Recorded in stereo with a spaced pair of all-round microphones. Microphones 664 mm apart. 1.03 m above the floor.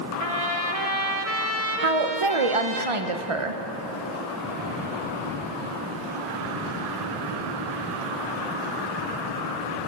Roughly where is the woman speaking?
Right.